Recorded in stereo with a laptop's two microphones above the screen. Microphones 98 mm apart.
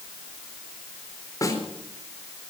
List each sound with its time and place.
1.4 s a snare drum: 40° left (ahead or behind), 4 m